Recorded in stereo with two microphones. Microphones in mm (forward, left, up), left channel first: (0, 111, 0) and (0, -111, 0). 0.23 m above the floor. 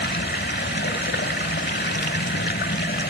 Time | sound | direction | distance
0.0 | running water | 50° left (ahead or behind) | 1.4 m